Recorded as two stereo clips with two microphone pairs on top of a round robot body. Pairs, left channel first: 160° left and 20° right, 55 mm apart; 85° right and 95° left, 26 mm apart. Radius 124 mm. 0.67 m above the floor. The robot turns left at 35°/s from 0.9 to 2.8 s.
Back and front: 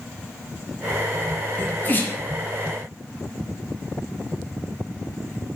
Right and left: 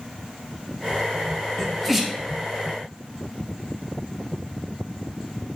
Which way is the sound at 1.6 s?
155° right.